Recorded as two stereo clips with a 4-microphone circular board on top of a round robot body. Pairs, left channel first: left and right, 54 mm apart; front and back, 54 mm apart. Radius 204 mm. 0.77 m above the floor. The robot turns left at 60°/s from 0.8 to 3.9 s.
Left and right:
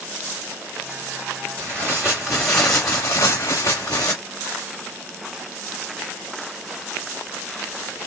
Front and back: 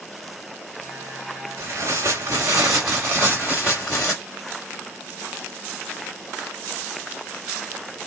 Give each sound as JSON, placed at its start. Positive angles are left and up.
{"t": 1.6, "sound": "tearing paper", "azimuth_deg": -140, "distance_m": 0.6}